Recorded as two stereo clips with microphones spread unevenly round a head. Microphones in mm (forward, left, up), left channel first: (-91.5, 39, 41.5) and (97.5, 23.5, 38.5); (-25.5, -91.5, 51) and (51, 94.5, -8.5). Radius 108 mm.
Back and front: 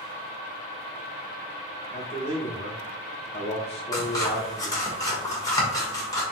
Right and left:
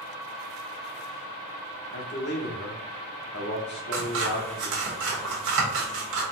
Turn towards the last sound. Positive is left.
turn(degrees=105)